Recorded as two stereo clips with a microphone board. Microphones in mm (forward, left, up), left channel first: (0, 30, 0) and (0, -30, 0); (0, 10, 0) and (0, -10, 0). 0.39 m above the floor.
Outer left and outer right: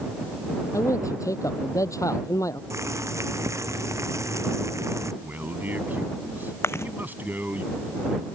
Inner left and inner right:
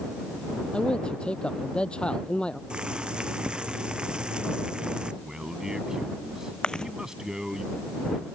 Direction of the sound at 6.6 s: 50° left (ahead or behind).